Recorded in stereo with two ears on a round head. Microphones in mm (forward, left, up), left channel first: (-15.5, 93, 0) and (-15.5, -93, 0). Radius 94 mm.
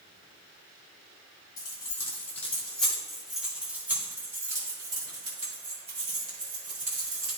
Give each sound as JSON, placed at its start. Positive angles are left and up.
{"t": 1.6, "sound": "keys jangling", "side_deg": 15, "distance_m": 2.5}